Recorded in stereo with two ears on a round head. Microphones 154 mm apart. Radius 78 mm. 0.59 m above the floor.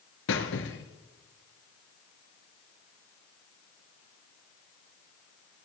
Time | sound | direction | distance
0.3 | a squeak | 75° left (ahead or behind) | 1.7 m